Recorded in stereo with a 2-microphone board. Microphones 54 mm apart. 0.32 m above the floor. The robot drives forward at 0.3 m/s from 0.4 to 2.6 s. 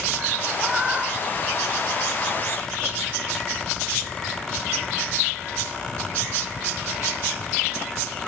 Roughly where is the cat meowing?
Right.